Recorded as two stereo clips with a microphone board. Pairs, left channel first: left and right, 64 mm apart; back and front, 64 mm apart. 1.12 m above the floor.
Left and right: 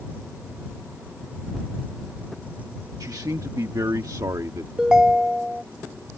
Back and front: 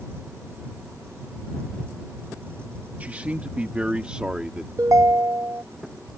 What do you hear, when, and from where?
3.0 s a man speaking: 65° right; by 4.7 s 75° right
4.8 s a ringtone: 15° right